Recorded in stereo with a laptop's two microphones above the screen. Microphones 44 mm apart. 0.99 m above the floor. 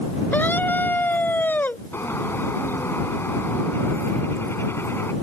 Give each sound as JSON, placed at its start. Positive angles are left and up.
{"t": 0.3, "sound": "a scream", "side_deg": 45}
{"t": 1.9, "sound": "a bird", "side_deg": 65}